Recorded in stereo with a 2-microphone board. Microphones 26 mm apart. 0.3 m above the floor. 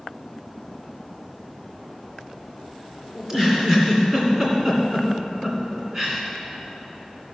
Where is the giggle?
25° right (ahead or behind), 2.5 m.